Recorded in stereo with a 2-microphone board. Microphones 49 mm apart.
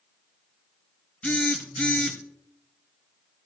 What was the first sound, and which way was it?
A phone buzzing, 25° left (ahead or behind).